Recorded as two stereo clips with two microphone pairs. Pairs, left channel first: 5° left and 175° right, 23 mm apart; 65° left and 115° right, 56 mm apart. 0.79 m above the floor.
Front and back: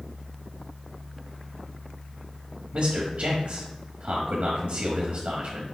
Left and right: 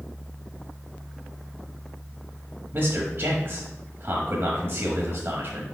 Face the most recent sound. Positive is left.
turn(degrees=-150)